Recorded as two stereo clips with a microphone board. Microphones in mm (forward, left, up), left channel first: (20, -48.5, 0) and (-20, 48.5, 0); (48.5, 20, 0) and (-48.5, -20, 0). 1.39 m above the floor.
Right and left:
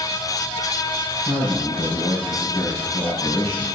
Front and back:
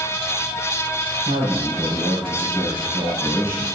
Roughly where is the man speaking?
Behind right.